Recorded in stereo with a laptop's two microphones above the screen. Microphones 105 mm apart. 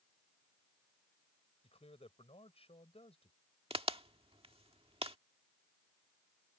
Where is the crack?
65° right (ahead or behind).